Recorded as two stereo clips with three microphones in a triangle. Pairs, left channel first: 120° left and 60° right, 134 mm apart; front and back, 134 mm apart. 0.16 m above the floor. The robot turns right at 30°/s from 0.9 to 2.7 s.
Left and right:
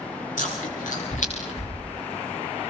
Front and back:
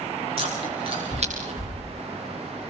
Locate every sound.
0.4 s chewing: 135° left, 8.5 m; by 1.8 s 160° left, 8.5 m